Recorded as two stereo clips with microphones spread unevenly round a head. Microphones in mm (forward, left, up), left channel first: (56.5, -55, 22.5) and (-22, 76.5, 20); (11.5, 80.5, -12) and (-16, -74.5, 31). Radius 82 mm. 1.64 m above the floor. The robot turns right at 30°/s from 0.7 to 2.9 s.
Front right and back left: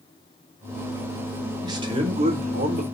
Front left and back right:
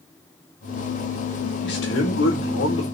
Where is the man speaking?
55° left, 4.5 m; by 2.8 s 90° left, 4.5 m.